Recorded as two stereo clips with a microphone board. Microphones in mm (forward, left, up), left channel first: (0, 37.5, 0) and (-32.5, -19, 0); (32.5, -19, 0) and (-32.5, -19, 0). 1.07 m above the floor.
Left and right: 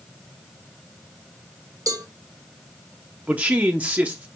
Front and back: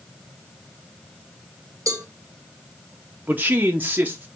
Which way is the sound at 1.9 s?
145° right.